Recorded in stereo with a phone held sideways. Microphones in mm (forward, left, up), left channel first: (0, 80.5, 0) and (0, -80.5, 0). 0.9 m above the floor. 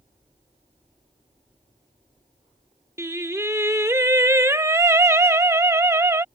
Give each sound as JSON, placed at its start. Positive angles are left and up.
{"t": 3.0, "sound": "singing", "side_deg": -15}